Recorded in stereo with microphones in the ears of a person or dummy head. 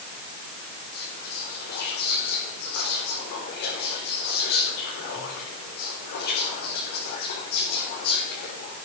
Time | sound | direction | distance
0.9 | whispering | 50° left (ahead or behind) | 5 m